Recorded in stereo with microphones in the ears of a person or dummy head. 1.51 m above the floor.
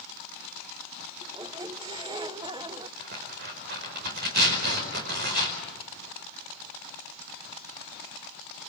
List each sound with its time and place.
1.2 s a squeak: 25° right (ahead or behind), 0.5 m
3.0 s tearing paper: 50° right (ahead or behind), 4.5 m